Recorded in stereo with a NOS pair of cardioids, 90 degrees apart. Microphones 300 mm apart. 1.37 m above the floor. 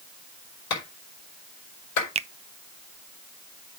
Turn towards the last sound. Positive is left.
turn(degrees=-20)